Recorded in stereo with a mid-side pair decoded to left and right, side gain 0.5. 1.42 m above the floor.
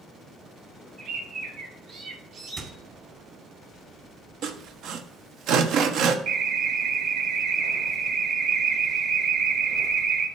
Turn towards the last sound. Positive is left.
turn(degrees=-70)